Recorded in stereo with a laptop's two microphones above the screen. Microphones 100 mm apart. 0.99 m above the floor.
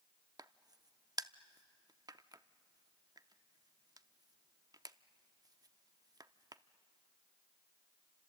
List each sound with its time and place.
0.4 s a crack: 40° right (ahead or behind), 0.5 m